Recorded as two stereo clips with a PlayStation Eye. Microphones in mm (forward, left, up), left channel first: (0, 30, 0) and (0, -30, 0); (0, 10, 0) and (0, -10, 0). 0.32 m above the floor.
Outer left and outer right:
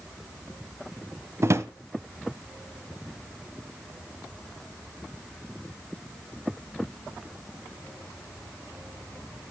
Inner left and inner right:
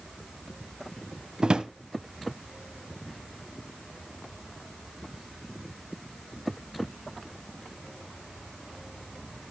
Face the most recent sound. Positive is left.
turn(degrees=-50)  # may be behind; listen again after turning